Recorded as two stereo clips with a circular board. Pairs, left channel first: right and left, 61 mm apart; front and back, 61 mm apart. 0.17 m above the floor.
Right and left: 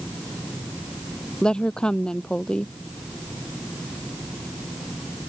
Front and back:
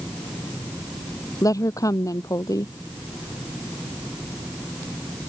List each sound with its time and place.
1.4 s a woman speaking: 15° right